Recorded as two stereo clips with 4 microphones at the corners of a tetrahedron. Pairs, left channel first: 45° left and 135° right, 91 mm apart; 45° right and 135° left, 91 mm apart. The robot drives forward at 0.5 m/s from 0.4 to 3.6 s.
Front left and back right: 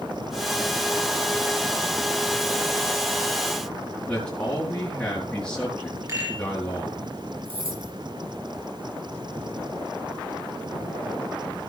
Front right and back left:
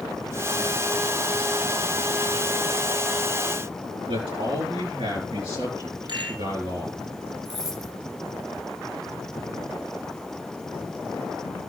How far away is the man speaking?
About 4.5 m.